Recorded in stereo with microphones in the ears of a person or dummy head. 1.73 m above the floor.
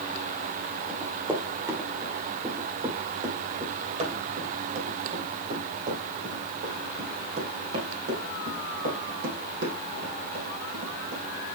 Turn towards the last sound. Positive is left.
turn(degrees=-65)  # may be behind; listen again after turning